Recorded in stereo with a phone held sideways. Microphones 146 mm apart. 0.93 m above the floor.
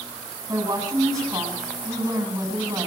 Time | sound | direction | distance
0.5 | a woman speaking | 25° right (ahead or behind) | 9.5 m